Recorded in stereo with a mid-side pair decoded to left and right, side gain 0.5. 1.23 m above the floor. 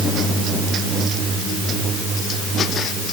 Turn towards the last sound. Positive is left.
No sound to turn to.